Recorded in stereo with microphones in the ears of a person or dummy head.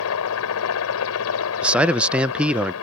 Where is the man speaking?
5° right (ahead or behind).